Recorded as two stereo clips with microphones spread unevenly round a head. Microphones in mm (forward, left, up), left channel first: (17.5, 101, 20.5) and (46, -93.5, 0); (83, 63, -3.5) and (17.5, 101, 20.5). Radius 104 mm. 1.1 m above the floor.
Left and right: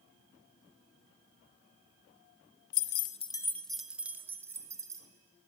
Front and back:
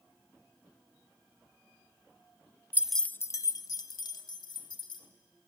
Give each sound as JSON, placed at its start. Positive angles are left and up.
{"t": 2.7, "sound": "keys jangling", "azimuth_deg": 90, "distance_m": 0.5}